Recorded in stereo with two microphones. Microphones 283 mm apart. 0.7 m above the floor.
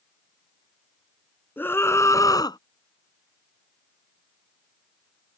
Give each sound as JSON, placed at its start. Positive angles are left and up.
{"t": 1.6, "sound": "a scream", "side_deg": 5}